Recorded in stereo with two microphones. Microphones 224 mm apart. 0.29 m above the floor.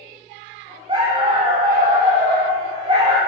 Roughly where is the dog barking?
Right.